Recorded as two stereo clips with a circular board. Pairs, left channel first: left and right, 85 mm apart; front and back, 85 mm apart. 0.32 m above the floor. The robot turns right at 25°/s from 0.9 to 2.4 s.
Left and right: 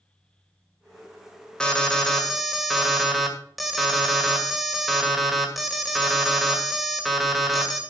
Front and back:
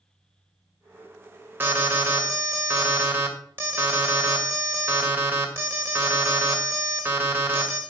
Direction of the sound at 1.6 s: 160° left.